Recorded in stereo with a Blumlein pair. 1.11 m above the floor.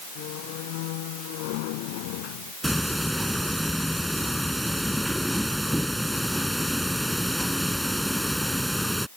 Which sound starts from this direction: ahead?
Ticking, at 2.6 s.